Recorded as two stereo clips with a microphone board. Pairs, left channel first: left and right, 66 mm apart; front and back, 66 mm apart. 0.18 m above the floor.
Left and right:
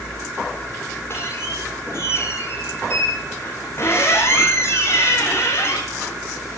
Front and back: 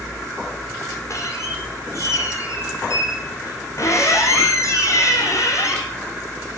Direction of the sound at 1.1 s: 40° left.